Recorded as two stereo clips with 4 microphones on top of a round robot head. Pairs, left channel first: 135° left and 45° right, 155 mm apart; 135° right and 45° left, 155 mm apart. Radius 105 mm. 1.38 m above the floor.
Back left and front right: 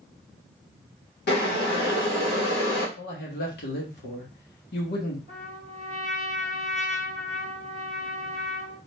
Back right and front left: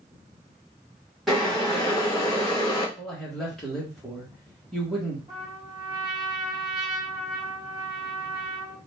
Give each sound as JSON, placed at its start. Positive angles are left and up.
{"t": 1.3, "sound": "boiling", "azimuth_deg": 135, "distance_m": 2.0}
{"t": 3.0, "sound": "a man speaking", "azimuth_deg": 135, "distance_m": 1.7}
{"t": 5.3, "sound": "a trumpet", "azimuth_deg": 105, "distance_m": 2.0}